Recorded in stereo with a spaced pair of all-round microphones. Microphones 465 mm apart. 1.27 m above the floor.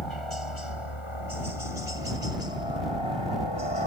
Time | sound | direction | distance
0.0 | a helicopter | 80° left | ?